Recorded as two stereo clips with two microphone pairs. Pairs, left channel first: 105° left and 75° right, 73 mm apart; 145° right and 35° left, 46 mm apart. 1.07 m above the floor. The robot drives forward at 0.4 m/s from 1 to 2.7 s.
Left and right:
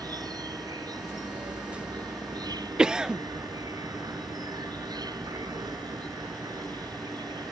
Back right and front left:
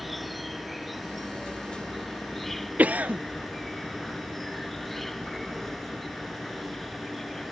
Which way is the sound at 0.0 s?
50° right.